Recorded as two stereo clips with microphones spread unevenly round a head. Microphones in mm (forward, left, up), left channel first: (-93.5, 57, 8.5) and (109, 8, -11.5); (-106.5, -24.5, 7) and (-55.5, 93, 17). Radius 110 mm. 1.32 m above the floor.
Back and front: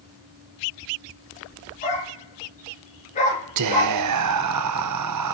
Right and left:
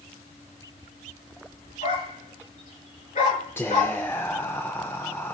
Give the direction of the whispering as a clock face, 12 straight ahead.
1 o'clock.